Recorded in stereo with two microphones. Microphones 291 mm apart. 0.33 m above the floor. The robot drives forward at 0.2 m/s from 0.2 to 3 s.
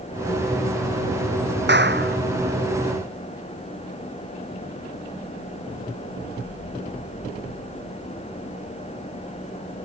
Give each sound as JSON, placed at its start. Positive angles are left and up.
{"t": 1.7, "sound": "a clap", "side_deg": -40}